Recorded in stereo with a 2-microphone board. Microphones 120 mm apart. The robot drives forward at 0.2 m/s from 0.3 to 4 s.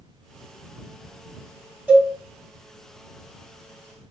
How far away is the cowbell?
About 1.7 m.